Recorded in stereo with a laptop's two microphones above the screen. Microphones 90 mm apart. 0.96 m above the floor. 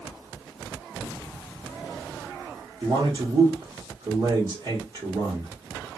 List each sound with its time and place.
2.8 s a man speaking: 55° right (ahead or behind), 1.2 m